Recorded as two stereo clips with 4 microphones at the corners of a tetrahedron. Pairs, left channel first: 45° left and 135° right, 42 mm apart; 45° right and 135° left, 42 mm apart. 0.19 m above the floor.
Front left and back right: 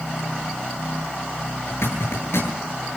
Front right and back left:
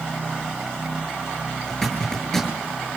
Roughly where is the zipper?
Ahead left.